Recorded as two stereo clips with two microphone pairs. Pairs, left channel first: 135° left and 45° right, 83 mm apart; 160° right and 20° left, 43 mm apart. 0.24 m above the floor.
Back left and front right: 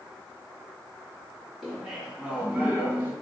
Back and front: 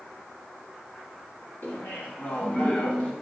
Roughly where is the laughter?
Behind right.